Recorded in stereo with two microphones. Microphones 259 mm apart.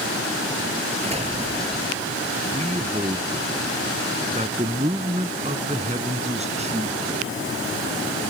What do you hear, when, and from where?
1.0 s an explosion: 25° right (ahead or behind)
2.5 s a man speaking: 25° right (ahead or behind)